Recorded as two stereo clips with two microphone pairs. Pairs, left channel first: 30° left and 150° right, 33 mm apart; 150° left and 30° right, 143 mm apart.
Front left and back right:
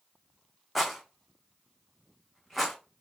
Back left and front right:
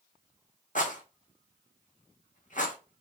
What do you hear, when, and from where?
0.8 s a rattle: 125° left, 1.3 m